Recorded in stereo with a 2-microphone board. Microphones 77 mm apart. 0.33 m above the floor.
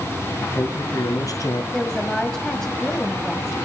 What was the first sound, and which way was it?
A man speaking, 50° left (ahead or behind).